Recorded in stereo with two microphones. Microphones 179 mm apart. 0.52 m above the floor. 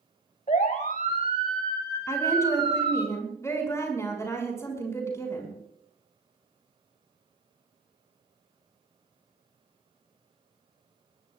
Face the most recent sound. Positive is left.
turn(degrees=15)  # may be behind; listen again after turning